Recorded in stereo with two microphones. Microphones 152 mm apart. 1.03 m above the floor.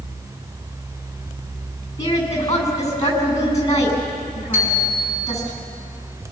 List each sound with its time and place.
2.0 s a woman speaking: 20° left (ahead or behind), 8 m
4.5 s a bicycle bell: 15° right (ahead or behind), 6.5 m